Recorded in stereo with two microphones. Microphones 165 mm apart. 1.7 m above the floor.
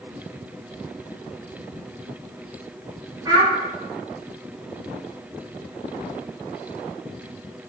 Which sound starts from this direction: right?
A child speaking, at 3.2 s.